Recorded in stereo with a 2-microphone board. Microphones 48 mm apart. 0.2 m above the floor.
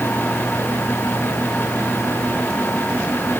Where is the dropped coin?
No dropped coin in this recording.